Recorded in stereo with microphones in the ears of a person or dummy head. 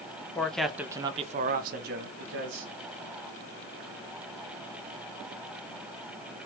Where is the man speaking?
15° left (ahead or behind), 0.7 m; by 2.7 s 65° right (ahead or behind), 1.0 m.